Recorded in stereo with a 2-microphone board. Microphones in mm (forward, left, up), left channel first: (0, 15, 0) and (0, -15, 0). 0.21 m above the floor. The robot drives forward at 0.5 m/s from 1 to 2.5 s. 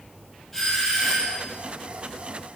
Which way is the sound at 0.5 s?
Centre (ahead or behind).